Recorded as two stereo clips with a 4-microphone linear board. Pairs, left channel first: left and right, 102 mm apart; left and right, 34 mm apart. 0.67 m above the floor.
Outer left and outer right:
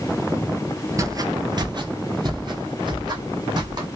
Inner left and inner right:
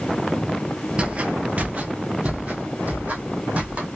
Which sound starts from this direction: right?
Footsteps, at 1.0 s.